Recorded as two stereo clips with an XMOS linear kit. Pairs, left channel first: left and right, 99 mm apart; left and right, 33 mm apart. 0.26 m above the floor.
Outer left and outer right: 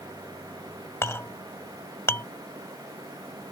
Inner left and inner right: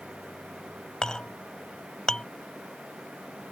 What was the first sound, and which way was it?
A clink, 25° left (ahead or behind).